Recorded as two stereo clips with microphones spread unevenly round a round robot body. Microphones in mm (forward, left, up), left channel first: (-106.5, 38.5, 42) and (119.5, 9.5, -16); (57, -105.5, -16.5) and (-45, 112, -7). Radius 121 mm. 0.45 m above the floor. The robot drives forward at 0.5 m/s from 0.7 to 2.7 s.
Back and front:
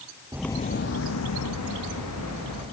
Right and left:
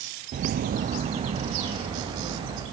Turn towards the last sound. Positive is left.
turn(degrees=-175)